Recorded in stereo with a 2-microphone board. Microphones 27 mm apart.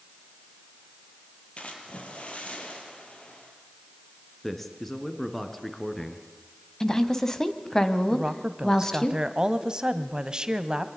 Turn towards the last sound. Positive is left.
turn(degrees=-30)  # may be behind; listen again after turning